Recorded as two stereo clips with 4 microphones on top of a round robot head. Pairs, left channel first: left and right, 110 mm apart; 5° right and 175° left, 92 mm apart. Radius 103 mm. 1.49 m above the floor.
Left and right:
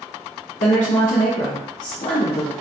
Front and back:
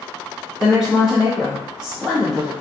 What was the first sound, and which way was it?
A woman speaking, 90° left.